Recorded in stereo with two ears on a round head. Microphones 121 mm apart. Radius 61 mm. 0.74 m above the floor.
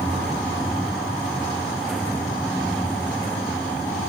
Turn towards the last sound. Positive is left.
No sound to turn to.